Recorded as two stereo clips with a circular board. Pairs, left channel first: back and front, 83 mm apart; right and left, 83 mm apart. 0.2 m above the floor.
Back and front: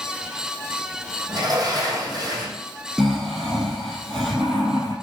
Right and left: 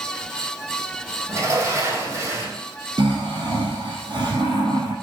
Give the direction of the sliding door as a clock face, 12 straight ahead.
11 o'clock.